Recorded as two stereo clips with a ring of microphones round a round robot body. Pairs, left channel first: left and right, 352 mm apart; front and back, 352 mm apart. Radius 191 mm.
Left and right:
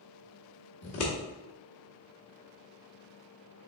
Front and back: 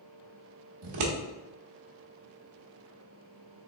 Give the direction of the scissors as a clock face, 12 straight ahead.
7 o'clock.